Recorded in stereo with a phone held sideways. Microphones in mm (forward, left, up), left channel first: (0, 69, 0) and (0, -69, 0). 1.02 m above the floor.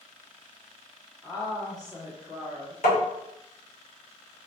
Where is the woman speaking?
30° left (ahead or behind), 0.8 m.